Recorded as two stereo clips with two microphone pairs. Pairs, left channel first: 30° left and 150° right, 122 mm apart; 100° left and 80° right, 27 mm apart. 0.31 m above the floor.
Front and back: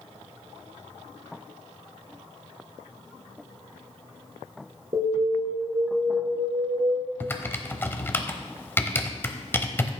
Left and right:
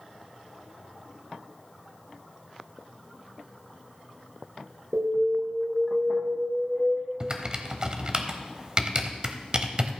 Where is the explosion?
I don't hear an explosion.